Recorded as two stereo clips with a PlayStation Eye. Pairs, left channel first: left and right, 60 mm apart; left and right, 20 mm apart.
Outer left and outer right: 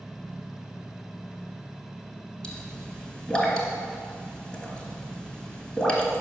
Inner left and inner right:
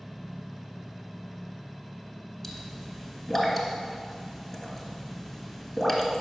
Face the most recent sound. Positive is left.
turn(degrees=15)  # may be behind; listen again after turning